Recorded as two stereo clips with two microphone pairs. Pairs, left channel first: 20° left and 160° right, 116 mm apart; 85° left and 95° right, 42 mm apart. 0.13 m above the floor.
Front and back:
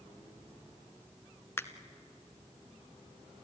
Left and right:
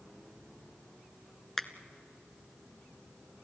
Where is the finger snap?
15° left, 0.8 m.